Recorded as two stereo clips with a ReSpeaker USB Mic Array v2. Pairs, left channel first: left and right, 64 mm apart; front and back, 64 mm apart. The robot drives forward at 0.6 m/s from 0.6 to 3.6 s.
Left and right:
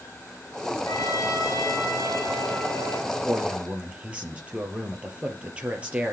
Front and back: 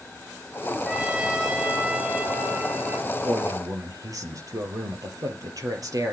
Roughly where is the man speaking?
Behind.